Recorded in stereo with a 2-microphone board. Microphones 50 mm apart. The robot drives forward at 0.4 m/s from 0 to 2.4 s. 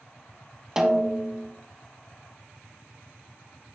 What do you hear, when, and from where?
0.8 s a snare drum: 15° right (ahead or behind), 0.8 m; by 1.5 s 10° right (ahead or behind), 1.1 m